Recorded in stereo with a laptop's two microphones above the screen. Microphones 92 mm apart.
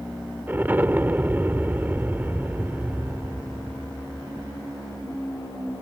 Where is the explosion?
20° right (ahead or behind).